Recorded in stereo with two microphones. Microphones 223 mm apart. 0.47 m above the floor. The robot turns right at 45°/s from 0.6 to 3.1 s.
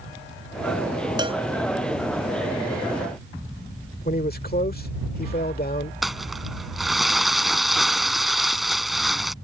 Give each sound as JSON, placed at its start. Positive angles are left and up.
{"t": 1.2, "sound": "a cowbell", "side_deg": -20}
{"t": 4.0, "sound": "a man speaking", "side_deg": 40}
{"t": 6.0, "sound": "crumpling", "side_deg": 0}